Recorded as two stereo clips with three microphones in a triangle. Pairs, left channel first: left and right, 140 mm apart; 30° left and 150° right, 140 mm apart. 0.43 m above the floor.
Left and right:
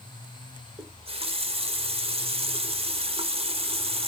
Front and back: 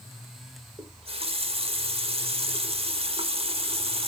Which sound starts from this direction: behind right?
A running tap, at 0.8 s.